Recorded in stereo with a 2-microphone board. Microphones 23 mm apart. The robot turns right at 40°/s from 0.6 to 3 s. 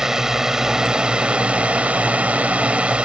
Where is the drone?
155° right; by 3.0 s 60° right.